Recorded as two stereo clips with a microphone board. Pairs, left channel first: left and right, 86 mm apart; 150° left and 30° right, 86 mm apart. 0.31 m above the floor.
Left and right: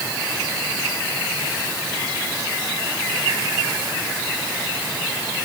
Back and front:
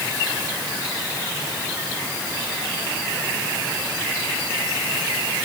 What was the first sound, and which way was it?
Only background noise.